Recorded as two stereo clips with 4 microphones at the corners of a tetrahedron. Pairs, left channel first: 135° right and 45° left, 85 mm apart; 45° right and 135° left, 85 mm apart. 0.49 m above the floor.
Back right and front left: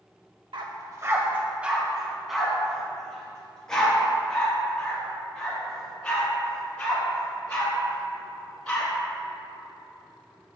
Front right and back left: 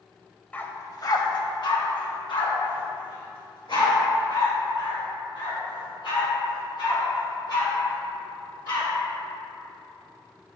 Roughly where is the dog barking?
Ahead left.